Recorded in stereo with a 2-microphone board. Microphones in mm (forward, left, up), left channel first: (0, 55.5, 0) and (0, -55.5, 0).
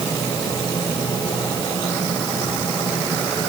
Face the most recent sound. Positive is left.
No sound to turn to.